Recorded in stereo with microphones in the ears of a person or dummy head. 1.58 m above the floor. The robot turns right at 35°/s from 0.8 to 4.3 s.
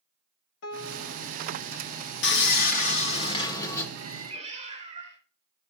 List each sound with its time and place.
0.6 s a piano: 65° left (ahead or behind), 0.9 m; by 1.4 s 50° left (ahead or behind), 0.9 m
2.2 s sawing: 110° left, 1.0 m; by 3.9 s 165° left, 1.0 m
4.0 s a cat meowing: 25° right (ahead or behind), 3 m; by 5.2 s 40° right (ahead or behind), 3 m